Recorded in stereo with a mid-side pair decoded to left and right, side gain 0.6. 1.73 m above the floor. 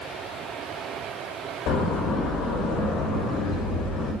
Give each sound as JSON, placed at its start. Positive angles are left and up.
{"t": 1.7, "sound": "a door slam", "azimuth_deg": 70, "distance_m": 6.0}